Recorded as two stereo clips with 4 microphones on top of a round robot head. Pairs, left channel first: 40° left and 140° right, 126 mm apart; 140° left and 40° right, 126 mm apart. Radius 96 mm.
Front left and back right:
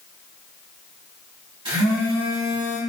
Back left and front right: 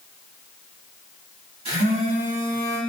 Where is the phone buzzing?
90° right, 1.7 m.